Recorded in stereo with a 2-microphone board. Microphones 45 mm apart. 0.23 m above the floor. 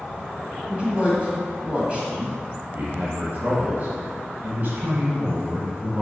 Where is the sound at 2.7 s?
40° right (ahead or behind), 1.5 m.